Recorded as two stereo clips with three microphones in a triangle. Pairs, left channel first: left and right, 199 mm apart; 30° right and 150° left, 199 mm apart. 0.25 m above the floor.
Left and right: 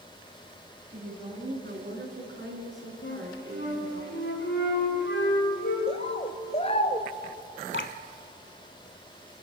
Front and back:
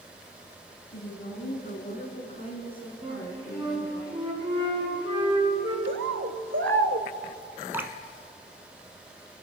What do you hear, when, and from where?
0.9 s a woman speaking: 45° right, 3.5 m; by 4.0 s 120° right, 3.5 m
3.0 s a flute: 85° left, 3.5 m
5.9 s a bird: 145° left, 0.5 m
7.7 s dripping: 70° left, 0.8 m